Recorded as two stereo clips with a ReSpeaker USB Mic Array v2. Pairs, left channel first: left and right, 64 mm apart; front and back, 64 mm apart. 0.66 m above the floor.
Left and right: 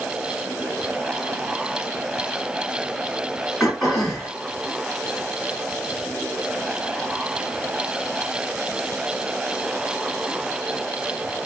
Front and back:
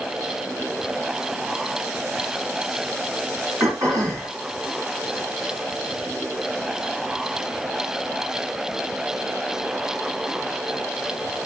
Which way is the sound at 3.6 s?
Straight behind.